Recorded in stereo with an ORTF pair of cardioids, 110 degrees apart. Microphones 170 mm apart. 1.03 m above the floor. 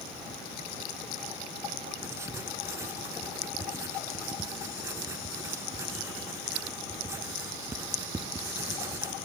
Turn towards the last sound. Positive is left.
turn(degrees=-15)